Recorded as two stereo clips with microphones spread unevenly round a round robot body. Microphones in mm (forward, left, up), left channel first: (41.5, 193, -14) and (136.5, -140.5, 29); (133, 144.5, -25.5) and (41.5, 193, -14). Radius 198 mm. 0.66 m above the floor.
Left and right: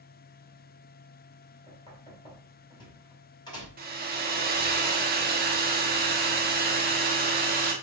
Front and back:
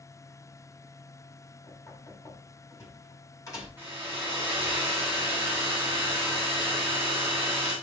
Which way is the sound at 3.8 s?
130° right.